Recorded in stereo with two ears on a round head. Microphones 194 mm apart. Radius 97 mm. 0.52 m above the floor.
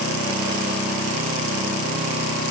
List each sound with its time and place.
Only background noise.